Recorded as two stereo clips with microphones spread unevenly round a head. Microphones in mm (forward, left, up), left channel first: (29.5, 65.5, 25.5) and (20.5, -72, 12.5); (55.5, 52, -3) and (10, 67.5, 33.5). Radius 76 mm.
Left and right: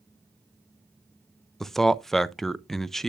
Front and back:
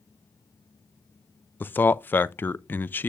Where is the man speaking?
5° right, 0.5 m.